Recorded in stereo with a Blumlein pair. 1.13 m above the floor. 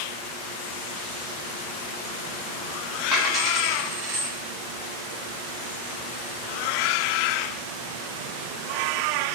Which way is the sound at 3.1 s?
15° right.